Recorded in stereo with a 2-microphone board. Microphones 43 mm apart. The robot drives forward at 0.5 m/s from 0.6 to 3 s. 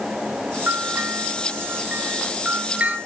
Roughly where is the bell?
Right.